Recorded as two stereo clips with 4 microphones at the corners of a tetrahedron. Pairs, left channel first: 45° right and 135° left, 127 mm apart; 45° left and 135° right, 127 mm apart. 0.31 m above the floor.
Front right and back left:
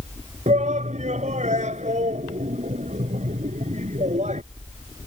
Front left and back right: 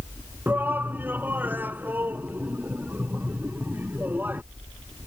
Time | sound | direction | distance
0.5 | a shout | 150° left | ?